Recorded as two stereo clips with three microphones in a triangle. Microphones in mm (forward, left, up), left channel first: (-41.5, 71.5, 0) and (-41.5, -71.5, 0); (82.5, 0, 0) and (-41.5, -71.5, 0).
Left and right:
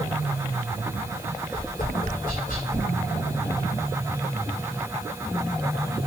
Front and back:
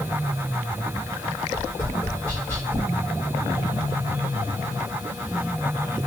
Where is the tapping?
105° left, 4.5 m.